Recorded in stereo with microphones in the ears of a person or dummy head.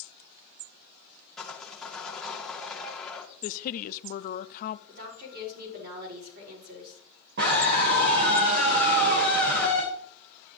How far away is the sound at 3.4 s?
About 0.6 m.